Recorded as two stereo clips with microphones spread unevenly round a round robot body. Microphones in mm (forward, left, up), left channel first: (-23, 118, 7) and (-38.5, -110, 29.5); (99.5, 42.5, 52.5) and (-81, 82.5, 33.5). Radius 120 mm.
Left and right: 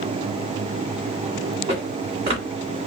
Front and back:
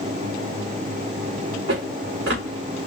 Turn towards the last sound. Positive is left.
turn(degrees=-155)